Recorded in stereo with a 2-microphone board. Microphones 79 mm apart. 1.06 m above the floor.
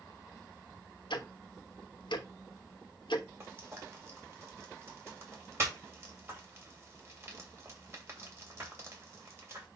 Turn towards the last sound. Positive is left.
turn(degrees=-35)  # may be behind; listen again after turning